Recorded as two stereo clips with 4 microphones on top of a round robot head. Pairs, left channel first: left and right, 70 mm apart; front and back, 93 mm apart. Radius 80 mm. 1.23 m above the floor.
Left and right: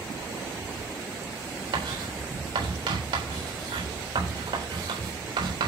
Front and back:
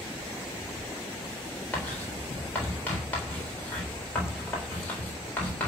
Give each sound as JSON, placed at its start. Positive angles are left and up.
{"t": 1.7, "sound": "writing", "azimuth_deg": -80, "distance_m": 4.0}